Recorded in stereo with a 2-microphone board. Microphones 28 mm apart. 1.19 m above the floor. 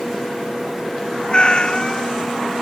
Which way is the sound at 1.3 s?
40° left (ahead or behind).